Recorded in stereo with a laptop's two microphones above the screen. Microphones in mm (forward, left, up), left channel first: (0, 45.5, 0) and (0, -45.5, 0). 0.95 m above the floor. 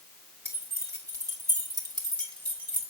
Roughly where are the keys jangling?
Right.